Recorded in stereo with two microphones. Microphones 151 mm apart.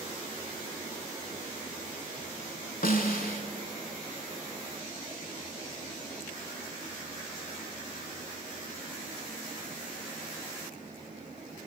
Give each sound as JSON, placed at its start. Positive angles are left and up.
{"t": 2.8, "sound": "a snare drum", "side_deg": 70, "distance_m": 0.6}